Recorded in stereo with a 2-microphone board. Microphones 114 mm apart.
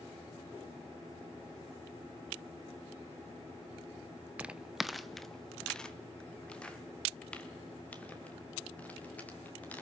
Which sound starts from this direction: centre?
Footsteps, at 4.4 s.